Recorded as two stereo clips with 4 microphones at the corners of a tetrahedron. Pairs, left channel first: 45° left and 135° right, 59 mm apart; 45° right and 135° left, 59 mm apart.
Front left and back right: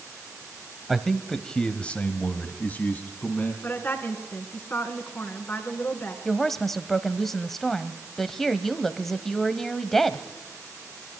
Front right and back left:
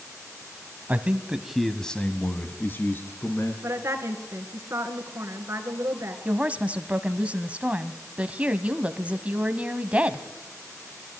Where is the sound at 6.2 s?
125° left, 1.0 m.